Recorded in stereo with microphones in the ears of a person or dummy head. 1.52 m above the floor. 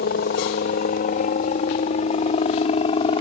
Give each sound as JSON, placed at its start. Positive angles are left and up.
{"t": 0.0, "sound": "a helicopter", "side_deg": 55}